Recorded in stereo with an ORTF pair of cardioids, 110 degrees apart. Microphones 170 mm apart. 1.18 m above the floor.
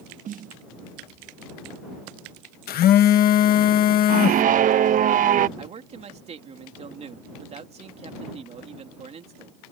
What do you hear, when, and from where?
0.2 s a snare drum: 55° right
2.7 s a phone buzzing: 60° left
4.1 s a scream: 55° right
5.6 s a man speaking: 40° right